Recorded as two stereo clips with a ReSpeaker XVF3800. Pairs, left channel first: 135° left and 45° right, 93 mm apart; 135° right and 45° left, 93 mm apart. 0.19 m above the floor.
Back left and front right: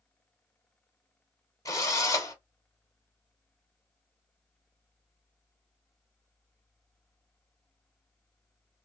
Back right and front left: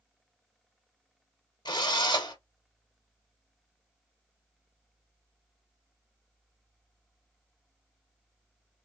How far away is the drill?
About 1.5 m.